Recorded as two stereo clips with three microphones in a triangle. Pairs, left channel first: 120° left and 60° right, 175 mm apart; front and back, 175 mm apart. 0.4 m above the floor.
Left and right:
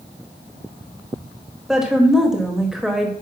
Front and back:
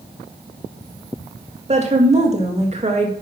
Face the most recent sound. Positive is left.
turn(degrees=-145)